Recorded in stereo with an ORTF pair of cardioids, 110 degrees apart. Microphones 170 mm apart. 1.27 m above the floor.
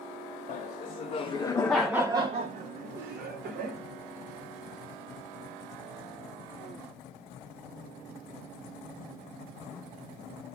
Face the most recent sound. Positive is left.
turn(degrees=-75)